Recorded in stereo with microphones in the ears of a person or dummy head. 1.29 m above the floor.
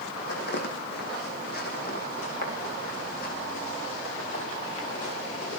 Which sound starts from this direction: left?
Footsteps, at 0.2 s.